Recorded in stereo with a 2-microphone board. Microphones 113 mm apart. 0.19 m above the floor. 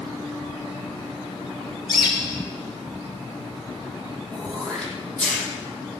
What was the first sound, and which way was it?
A bird, 40° left (ahead or behind).